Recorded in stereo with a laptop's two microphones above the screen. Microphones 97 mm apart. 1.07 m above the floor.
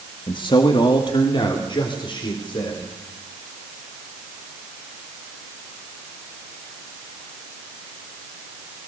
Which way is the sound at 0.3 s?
55° left (ahead or behind).